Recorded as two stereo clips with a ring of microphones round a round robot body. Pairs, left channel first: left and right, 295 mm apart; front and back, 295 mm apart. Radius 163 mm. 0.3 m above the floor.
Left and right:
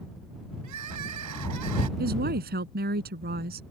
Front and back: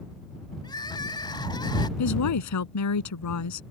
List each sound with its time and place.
0.6 s crying: 75° right
2.0 s a woman speaking: 30° right